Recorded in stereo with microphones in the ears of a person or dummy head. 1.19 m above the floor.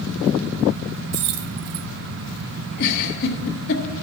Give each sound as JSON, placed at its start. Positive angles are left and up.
{"t": 1.1, "sound": "keys jangling", "side_deg": -55, "distance_m": 0.5}
{"t": 2.8, "sound": "a giggle", "side_deg": 65, "distance_m": 1.6}